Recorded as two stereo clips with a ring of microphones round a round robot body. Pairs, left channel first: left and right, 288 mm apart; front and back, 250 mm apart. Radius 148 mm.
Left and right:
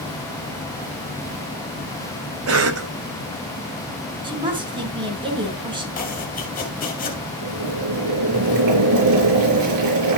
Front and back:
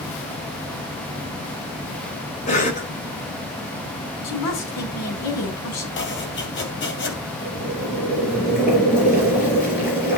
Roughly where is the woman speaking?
Ahead.